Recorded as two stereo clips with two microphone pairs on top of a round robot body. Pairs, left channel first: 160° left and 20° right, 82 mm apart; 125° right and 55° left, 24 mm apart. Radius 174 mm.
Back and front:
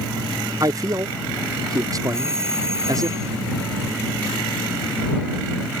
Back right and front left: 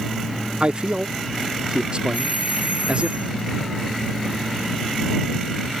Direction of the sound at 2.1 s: 40° left.